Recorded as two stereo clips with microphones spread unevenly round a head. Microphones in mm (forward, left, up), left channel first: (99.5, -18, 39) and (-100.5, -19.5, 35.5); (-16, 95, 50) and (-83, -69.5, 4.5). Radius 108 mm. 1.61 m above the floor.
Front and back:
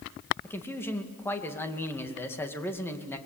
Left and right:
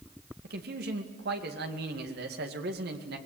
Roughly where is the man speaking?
Right.